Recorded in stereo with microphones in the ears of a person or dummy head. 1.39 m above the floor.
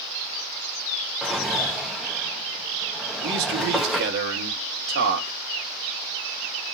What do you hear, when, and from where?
1.2 s a drawer: centre (ahead or behind), 0.8 m
3.2 s a man speaking: 55° right (ahead or behind), 4 m